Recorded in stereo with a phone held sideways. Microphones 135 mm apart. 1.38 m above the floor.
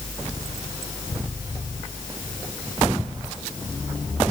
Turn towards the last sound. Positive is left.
No sound to turn to.